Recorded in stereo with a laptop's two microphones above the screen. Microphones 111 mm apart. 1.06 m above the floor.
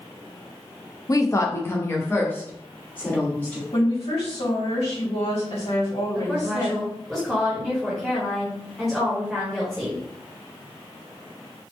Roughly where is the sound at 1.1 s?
Left.